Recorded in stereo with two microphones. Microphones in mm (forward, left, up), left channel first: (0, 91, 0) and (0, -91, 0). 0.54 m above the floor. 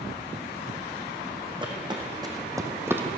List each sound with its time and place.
1.6 s footsteps: 25° right (ahead or behind), 2.5 m; by 3.0 s 10° right (ahead or behind), 1.5 m